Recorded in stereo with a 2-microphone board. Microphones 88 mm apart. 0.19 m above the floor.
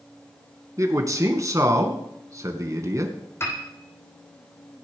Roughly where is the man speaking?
Right.